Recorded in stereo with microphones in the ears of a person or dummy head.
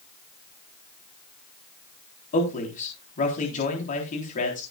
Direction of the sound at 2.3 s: 40° left (ahead or behind).